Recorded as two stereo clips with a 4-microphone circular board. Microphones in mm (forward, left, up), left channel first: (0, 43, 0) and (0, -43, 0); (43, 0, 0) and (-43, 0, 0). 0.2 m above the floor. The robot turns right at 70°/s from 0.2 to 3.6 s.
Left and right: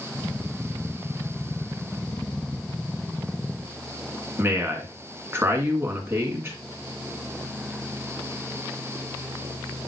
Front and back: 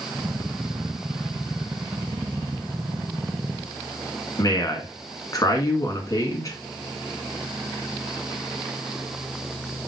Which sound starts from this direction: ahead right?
A man speaking, at 4.4 s.